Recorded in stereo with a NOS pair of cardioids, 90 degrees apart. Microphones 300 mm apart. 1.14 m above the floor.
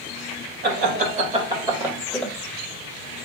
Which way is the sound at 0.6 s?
35° right.